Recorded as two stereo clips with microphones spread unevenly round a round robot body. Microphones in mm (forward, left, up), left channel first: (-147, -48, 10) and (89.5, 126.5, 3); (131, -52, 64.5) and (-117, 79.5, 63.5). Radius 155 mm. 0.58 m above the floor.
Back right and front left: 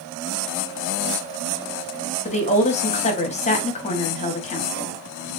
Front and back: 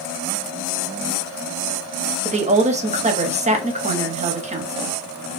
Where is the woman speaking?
Straight behind, 0.9 m.